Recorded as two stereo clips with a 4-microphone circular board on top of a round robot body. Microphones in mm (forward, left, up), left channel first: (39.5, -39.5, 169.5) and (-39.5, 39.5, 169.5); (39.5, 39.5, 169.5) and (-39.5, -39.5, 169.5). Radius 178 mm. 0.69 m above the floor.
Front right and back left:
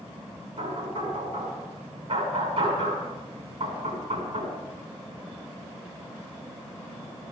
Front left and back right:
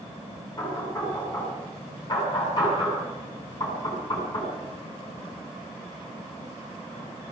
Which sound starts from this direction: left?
Knocking, at 0.6 s.